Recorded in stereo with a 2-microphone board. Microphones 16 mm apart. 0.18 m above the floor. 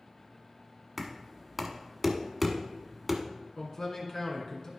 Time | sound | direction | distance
1.0 | knocking | 5° right (ahead or behind) | 1.0 m
3.6 | a man speaking | 30° left (ahead or behind) | 2.5 m